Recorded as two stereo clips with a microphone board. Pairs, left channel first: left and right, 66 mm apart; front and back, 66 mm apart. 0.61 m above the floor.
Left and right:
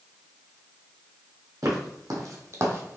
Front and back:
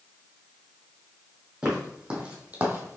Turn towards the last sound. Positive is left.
turn(degrees=-135)